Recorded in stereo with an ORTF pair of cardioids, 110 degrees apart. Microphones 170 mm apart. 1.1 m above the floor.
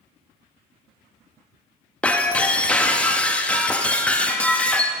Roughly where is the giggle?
No giggle in this recording.